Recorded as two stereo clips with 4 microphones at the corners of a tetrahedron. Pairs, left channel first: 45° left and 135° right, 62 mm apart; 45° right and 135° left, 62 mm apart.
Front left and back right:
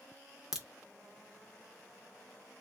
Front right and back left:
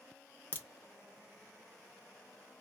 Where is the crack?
55° right, 0.6 m.